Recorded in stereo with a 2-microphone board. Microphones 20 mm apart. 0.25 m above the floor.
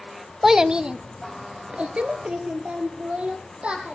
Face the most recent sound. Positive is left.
turn(degrees=-80)